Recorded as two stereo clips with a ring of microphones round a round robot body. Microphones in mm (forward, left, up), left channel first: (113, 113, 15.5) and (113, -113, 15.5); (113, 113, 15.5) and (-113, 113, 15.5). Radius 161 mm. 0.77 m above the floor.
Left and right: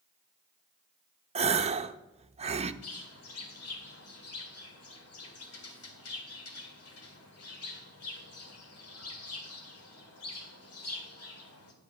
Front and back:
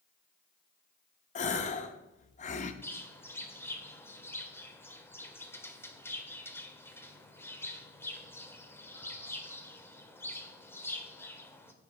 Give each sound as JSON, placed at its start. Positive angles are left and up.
{"t": 1.4, "sound": "a gasp", "azimuth_deg": -40, "distance_m": 0.7}
{"t": 2.8, "sound": "a bird", "azimuth_deg": 80, "distance_m": 2.0}